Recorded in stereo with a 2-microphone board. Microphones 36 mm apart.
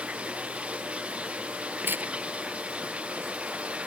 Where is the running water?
35° right (ahead or behind).